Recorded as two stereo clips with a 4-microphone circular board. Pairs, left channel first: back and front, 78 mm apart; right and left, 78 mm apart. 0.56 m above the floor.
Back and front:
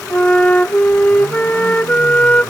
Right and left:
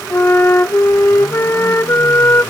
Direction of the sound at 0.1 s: 120° right.